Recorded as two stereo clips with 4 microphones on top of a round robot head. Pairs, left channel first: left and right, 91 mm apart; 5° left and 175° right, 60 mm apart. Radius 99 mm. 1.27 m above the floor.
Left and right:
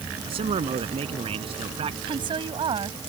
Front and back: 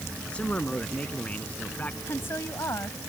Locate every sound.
0.3 s a man speaking: 75° right; by 2.0 s 70° right
2.1 s a woman speaking: 60° right